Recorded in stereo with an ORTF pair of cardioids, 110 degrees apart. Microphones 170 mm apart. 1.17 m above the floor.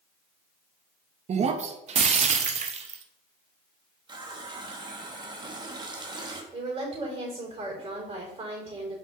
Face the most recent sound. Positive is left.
turn(degrees=-35)